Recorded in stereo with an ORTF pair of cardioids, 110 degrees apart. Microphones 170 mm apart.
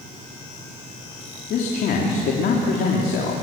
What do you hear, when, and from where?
1.5 s a man speaking: 65° left, 3.5 m